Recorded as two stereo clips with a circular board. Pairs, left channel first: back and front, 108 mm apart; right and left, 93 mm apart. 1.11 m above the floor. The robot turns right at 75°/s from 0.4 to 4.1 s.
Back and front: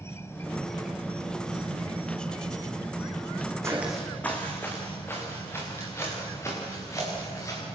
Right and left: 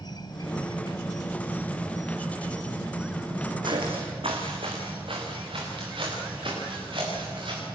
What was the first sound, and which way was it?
An insect, 120° right.